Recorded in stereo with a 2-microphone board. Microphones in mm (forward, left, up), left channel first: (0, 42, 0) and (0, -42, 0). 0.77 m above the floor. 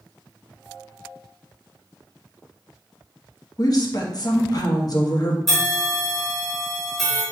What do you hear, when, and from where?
3.6 s a woman speaking: 50° left (ahead or behind), 1.0 m
5.5 s a bell: 5° left (ahead or behind), 2 m